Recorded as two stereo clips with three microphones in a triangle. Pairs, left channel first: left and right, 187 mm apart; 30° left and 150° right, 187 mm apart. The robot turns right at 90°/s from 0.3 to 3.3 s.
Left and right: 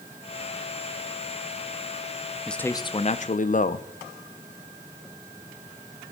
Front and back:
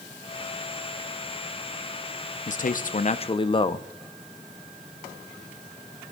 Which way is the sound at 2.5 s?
Straight ahead.